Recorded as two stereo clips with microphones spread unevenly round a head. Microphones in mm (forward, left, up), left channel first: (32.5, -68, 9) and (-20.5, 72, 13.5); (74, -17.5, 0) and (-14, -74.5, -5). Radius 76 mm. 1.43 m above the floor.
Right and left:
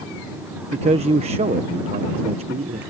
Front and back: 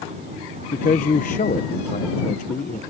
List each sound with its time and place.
0.7 s a man speaking: 60° left